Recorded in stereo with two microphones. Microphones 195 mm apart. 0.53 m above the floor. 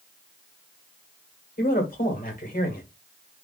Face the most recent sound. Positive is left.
turn(degrees=50)  # may be behind; listen again after turning